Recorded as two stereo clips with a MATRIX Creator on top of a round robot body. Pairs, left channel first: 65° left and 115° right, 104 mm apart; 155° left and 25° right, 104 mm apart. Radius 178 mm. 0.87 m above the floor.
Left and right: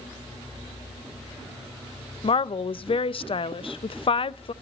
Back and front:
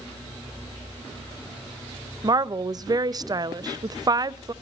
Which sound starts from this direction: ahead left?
A woman speaking, at 2.2 s.